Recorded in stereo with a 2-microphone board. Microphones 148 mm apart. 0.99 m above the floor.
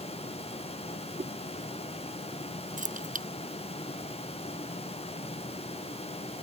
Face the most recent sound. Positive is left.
turn(degrees=-65)  # may be behind; listen again after turning